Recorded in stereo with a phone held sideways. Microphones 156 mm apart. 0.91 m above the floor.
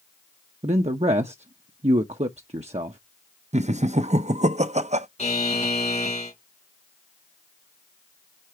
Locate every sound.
0.6 s a man speaking: 45° right (ahead or behind), 0.7 m
3.5 s laughter: 45° right (ahead or behind), 0.6 m
5.2 s a buzzer: 50° left (ahead or behind), 2.5 m